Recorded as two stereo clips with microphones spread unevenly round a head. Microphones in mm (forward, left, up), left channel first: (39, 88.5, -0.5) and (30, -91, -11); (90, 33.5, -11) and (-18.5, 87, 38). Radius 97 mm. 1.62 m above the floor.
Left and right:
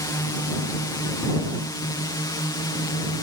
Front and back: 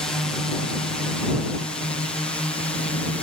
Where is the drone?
25° left.